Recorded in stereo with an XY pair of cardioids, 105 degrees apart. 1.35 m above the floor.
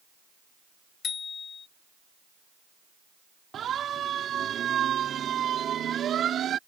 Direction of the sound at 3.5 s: 55° right.